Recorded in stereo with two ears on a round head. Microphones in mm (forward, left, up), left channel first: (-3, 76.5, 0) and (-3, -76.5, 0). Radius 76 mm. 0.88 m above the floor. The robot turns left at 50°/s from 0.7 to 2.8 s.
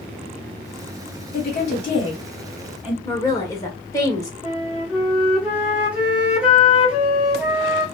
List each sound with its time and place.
1.3 s a woman speaking: 55° left (ahead or behind), 1.8 m; by 3.0 s 10° right (ahead or behind), 1.8 m
3.0 s a woman speaking: 20° left (ahead or behind), 0.7 m
4.4 s a flute: 10° right (ahead or behind), 1.0 m